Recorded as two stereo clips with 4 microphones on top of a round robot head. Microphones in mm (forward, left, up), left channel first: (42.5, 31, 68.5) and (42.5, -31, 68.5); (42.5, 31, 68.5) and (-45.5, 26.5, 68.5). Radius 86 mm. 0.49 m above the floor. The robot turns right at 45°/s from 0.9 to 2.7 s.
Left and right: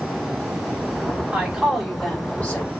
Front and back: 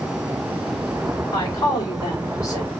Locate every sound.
1.3 s a woman speaking: 20° right, 1.7 m; by 2.7 s 40° left, 1.7 m